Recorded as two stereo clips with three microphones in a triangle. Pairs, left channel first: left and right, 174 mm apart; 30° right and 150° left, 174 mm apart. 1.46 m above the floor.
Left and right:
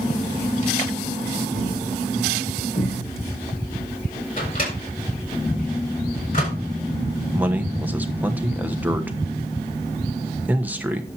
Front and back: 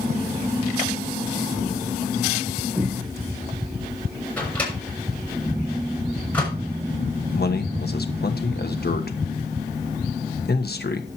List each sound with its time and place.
1.5 s a thud: 65° left, 6.5 m
4.4 s a microwave: 50° left, 6.5 m
7.3 s a man speaking: 10° right, 1.2 m